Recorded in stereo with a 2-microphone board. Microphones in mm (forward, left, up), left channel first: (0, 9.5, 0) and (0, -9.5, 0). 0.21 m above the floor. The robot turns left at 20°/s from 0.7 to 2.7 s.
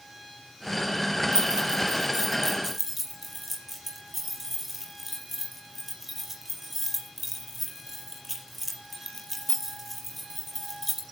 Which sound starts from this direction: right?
Keys jangling, at 1.3 s.